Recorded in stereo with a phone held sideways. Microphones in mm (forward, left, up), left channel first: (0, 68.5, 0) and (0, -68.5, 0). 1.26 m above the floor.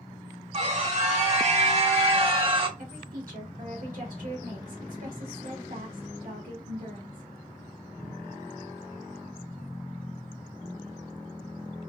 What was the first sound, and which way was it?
A scream, 50° right (ahead or behind).